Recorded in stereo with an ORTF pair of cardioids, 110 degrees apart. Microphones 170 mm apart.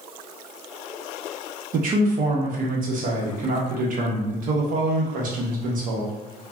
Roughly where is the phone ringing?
No phone ringing in this recording.